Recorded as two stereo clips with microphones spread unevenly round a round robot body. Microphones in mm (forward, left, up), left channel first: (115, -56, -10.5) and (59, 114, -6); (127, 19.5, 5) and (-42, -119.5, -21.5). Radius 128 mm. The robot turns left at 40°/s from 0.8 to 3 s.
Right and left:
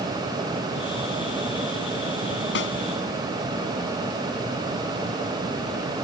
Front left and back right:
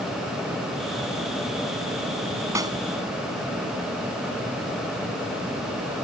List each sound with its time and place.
2.5 s a snare drum: 65° right; by 2.8 s 70° right